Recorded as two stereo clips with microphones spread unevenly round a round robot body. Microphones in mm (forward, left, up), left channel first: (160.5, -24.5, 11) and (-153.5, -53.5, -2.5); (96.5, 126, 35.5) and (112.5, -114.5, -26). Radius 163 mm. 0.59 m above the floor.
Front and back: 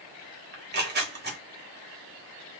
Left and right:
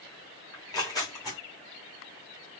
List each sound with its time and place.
0.5 s tearing paper: straight behind, 1.0 m